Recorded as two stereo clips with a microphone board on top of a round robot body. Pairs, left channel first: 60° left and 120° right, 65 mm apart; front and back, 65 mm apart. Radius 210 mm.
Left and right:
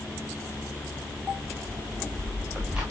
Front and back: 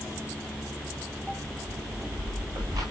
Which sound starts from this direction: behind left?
Footsteps, at 1.7 s.